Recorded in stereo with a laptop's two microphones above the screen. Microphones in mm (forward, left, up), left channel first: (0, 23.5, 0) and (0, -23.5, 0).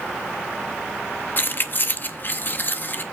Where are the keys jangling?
45° left (ahead or behind), 0.6 m.